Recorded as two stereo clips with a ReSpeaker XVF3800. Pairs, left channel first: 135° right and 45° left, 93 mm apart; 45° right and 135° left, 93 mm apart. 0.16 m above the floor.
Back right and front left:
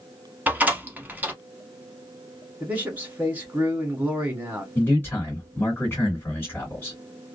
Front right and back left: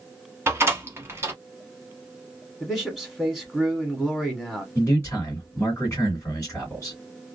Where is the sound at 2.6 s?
60° left, 1.1 m.